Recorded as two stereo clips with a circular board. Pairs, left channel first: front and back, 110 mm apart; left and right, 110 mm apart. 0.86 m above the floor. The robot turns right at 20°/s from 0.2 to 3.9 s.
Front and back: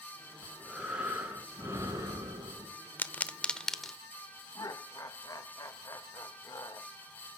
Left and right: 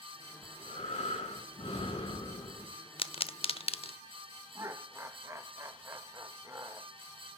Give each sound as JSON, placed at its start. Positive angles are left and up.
{"t": 0.4, "sound": "breathing", "azimuth_deg": 90, "distance_m": 5.5}
{"t": 3.0, "sound": "a pop", "azimuth_deg": 70, "distance_m": 0.8}
{"t": 4.5, "sound": "laughter", "azimuth_deg": -40, "distance_m": 1.1}